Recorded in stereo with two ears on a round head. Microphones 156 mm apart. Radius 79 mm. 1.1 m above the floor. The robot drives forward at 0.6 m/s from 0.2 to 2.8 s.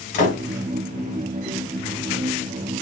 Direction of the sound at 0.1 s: 45° left (ahead or behind).